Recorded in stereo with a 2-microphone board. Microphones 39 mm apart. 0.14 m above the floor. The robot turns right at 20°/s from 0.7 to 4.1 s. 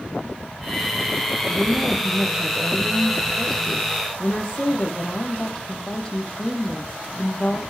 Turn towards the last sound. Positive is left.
turn(degrees=20)